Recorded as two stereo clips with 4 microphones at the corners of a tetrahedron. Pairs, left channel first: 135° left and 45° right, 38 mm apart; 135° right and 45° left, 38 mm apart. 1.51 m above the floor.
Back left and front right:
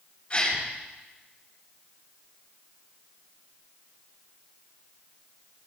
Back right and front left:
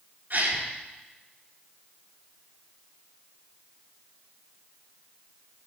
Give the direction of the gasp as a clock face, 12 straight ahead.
10 o'clock.